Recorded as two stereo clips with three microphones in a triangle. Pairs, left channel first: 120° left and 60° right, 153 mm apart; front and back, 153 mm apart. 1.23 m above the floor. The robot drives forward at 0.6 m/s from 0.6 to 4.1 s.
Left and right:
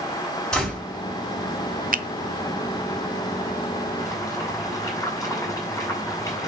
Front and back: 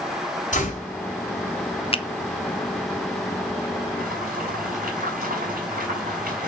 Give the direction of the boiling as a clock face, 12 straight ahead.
6 o'clock.